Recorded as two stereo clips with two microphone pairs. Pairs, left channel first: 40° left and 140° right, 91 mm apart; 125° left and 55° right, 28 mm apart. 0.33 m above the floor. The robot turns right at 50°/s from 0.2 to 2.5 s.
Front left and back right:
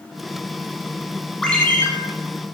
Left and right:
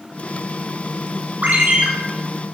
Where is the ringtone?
45° right, 1.0 m; by 1.9 s 25° right, 1.0 m.